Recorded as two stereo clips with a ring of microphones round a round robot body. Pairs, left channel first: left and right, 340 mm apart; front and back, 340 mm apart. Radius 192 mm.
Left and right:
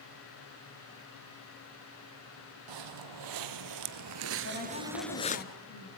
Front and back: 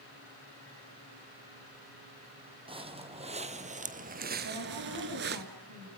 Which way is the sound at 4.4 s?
130° left.